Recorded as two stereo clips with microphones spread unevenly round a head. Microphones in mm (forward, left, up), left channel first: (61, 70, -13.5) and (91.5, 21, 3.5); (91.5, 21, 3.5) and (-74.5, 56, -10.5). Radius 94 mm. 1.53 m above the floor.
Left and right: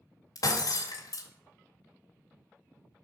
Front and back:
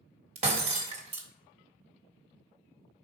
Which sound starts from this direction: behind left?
Breaking glass, at 0.3 s.